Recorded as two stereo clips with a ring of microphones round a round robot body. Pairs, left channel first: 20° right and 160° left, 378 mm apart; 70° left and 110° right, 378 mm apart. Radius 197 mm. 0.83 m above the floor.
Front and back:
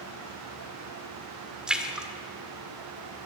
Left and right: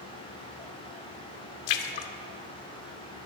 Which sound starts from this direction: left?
A splash, at 1.7 s.